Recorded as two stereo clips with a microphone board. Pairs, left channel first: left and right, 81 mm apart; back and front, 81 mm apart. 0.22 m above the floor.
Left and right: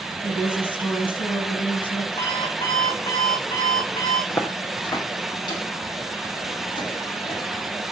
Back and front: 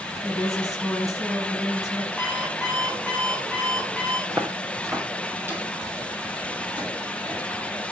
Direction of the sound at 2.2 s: 90° left.